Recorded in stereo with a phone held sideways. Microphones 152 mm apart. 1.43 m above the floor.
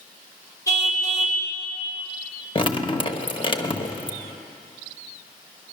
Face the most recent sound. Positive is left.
turn(degrees=35)  # may be behind; listen again after turning